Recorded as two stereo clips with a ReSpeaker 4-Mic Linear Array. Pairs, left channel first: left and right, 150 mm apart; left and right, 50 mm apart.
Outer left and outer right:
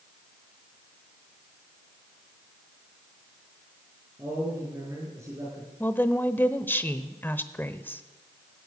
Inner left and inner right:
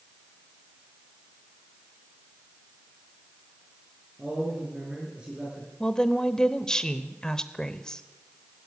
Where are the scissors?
No scissors in this recording.